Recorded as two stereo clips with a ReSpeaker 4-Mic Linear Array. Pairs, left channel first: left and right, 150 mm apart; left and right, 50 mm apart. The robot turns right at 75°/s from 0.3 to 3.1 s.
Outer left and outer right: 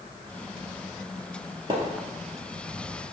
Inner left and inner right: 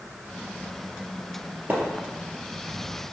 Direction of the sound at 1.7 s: 35° right (ahead or behind).